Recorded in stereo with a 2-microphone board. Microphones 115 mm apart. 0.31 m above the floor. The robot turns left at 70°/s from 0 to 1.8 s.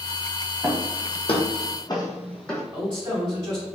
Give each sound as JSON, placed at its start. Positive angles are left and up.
{"t": 0.6, "sound": "footsteps", "side_deg": -10, "distance_m": 1.1}
{"t": 2.7, "sound": "a man speaking", "side_deg": -30, "distance_m": 1.9}